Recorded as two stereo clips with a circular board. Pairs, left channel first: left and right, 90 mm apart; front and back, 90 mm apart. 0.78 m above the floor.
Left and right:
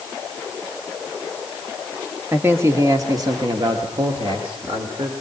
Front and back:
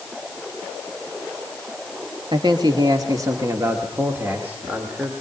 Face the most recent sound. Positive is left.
turn(degrees=-105)